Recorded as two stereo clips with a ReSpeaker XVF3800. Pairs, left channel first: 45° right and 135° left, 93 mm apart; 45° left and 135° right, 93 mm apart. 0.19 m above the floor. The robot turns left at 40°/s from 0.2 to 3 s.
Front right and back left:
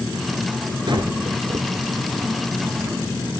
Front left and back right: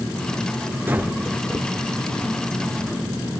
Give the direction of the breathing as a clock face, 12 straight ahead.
7 o'clock.